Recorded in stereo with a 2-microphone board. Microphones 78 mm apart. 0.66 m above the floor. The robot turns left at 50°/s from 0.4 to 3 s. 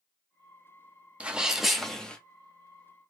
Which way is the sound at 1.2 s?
155° right.